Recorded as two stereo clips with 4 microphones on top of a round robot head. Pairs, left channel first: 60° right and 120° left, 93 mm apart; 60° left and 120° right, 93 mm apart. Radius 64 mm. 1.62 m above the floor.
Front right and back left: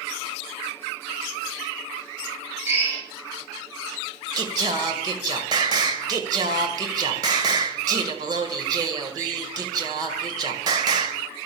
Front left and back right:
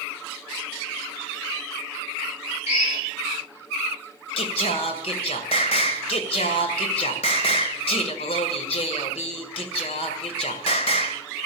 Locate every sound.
2.7 s a drill: 55° left, 7.5 m
4.4 s singing: 80° left, 1.8 m